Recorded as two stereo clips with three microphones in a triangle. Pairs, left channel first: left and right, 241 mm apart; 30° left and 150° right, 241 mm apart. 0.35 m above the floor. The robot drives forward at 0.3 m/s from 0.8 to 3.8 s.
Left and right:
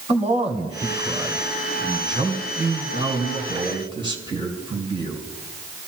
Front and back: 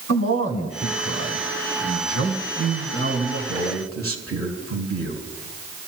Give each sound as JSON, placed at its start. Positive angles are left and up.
{"t": 0.1, "sound": "a man speaking", "azimuth_deg": -150, "distance_m": 3.0}